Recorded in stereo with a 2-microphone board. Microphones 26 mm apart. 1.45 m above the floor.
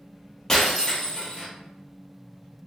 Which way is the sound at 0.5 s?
15° left (ahead or behind).